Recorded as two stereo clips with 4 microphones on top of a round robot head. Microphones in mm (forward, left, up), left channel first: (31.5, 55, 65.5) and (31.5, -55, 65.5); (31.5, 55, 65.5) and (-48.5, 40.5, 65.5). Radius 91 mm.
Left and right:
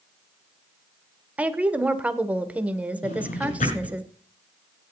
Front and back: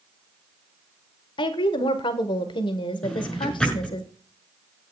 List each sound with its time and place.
1.4 s a woman speaking: 15° right, 1.6 m
3.0 s a drawer: 95° left, 7.5 m